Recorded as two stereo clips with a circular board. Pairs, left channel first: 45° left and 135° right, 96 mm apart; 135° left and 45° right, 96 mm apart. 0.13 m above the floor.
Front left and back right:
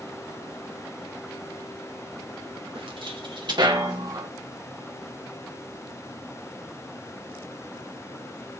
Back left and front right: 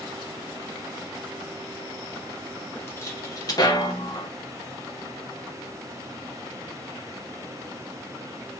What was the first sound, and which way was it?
Footsteps, 160° right.